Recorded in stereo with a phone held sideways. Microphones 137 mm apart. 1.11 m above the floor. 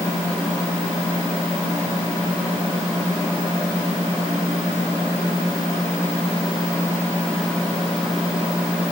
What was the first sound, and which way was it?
Only background noise.